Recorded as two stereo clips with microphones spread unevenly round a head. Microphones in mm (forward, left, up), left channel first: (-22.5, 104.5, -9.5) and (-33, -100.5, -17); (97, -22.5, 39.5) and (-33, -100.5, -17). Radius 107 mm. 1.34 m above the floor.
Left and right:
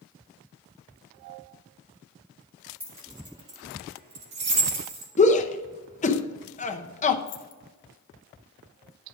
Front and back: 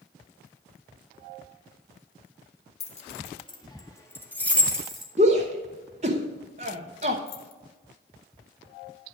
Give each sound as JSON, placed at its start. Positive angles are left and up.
{"t": 2.8, "sound": "keys jangling", "azimuth_deg": -10, "distance_m": 1.8}
{"t": 5.2, "sound": "a shout", "azimuth_deg": 145, "distance_m": 0.9}
{"t": 7.3, "sound": "keys jangling", "azimuth_deg": 50, "distance_m": 1.2}